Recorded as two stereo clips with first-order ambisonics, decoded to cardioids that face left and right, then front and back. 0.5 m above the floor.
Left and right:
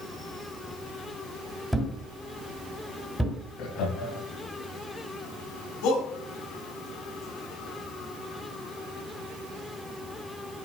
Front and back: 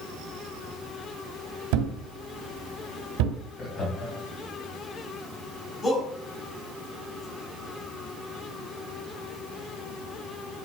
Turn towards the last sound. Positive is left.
turn(degrees=75)